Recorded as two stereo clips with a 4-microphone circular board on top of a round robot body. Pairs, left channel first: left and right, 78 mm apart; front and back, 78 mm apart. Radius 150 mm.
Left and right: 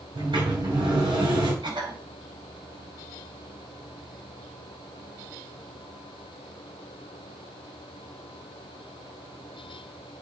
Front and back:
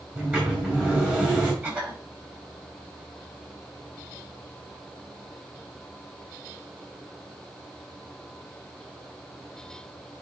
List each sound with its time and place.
0.1 s a sliding door: 110° right, 4.5 m
1.6 s a cough: 110° right, 6 m